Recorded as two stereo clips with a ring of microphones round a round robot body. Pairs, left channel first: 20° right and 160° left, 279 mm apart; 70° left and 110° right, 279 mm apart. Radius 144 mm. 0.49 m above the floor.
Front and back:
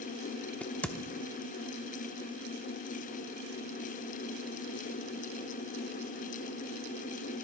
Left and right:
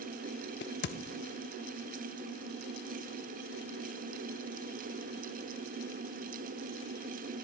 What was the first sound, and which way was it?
A crack, 60° left.